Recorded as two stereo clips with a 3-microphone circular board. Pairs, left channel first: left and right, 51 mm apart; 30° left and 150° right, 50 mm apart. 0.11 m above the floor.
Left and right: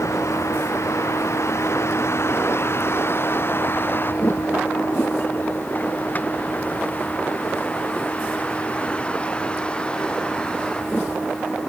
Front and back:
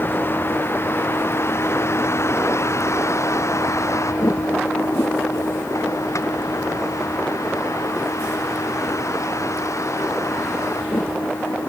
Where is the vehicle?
75° left; by 11.7 s 15° left.